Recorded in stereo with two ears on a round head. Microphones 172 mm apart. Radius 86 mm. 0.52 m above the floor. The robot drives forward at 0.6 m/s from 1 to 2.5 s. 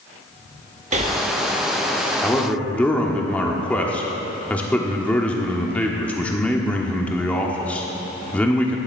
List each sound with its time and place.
0.9 s breathing: 40° right (ahead or behind), 0.8 m; by 1.2 s 35° right (ahead or behind), 0.9 m
2.2 s a man speaking: 5° left (ahead or behind), 1.2 m